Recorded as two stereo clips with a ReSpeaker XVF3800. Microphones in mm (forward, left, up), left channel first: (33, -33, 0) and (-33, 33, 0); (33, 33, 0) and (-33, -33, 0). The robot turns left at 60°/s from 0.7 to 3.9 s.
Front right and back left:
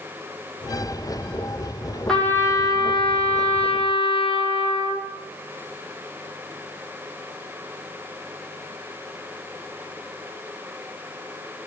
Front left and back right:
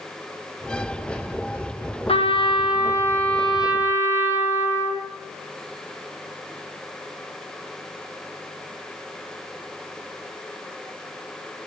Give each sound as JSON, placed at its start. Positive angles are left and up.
{"t": 2.1, "sound": "a trumpet", "azimuth_deg": 40, "distance_m": 1.7}